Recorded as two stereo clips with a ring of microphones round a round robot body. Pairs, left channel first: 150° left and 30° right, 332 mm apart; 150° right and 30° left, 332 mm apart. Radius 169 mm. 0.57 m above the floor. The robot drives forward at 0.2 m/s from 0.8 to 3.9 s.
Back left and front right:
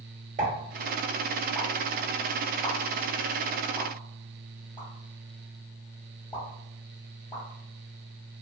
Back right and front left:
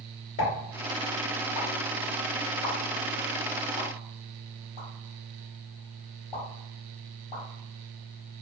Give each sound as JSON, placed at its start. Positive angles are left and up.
{"t": 0.4, "sound": "a pop", "azimuth_deg": -95, "distance_m": 0.8}